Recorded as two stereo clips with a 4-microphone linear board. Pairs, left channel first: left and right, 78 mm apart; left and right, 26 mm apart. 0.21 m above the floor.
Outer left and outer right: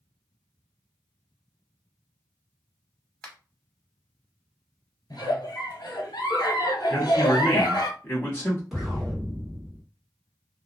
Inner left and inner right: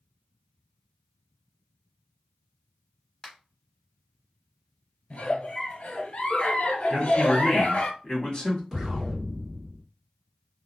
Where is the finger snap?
20° left (ahead or behind), 1.0 m.